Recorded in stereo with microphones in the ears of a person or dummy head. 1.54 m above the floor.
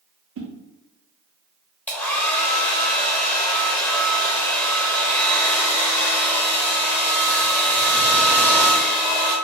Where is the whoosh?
60° right (ahead or behind), 0.5 m.